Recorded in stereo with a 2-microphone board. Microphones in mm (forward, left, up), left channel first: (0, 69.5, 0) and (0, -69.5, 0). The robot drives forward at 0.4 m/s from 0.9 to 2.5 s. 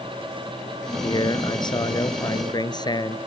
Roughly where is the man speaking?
Left.